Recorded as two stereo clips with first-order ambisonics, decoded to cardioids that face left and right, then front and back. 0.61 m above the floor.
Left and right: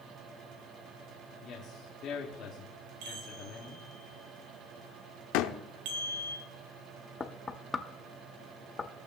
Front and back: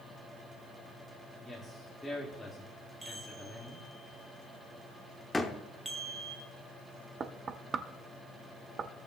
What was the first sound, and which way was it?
A man speaking, 85° left.